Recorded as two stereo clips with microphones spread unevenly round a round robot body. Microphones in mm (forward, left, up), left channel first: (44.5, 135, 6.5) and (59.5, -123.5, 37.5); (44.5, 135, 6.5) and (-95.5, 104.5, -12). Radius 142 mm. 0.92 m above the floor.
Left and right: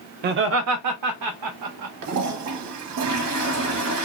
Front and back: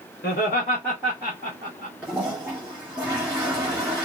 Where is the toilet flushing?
85° right, 0.9 m.